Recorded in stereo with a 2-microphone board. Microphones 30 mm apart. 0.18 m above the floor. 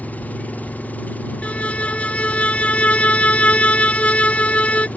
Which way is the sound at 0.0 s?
65° left (ahead or behind).